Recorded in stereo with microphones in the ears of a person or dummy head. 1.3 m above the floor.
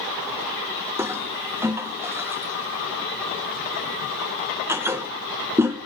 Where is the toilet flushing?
10° right (ahead or behind), 0.9 m.